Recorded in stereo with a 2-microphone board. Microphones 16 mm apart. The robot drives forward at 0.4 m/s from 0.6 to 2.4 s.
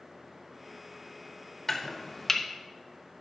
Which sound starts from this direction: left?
Chopping, at 1.7 s.